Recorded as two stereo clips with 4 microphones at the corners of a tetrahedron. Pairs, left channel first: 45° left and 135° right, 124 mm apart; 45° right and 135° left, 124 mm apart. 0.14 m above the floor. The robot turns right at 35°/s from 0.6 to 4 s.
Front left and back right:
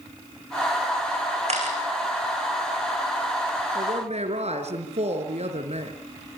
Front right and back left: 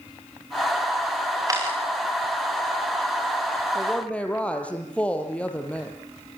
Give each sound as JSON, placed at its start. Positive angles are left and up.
{"t": 1.5, "sound": "a camera shutter", "azimuth_deg": -165, "distance_m": 6.5}
{"t": 3.8, "sound": "a woman speaking", "azimuth_deg": -135, "distance_m": 3.5}